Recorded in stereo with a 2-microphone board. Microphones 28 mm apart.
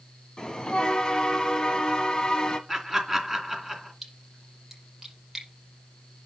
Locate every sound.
0.4 s a bell: 25° left (ahead or behind), 1.7 m
2.7 s laughter: 5° right (ahead or behind), 2.5 m
4.0 s a splash: 10° right (ahead or behind), 5.5 m